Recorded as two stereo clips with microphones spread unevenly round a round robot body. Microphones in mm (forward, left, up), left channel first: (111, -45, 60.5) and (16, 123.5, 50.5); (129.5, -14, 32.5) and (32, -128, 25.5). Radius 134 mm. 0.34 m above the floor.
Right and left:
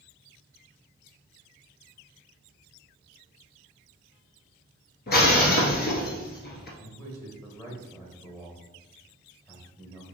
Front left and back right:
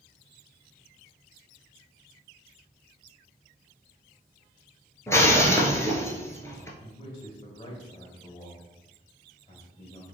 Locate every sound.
5.1 s breaking glass: 25° right, 1.1 m
6.8 s a man speaking: 10° left, 1.8 m